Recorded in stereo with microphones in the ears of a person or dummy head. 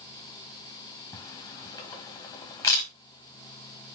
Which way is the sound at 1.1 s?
20° left (ahead or behind).